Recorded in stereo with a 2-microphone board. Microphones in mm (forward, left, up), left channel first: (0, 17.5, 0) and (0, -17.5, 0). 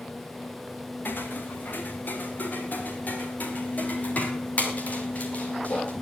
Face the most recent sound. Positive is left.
turn(degrees=40)  # may be behind; listen again after turning